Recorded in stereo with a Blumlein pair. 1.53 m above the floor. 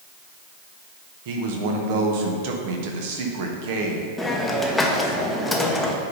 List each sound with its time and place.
1.2 s a man speaking: 50° right, 1.2 m
4.2 s a hiss: 5° left, 0.9 m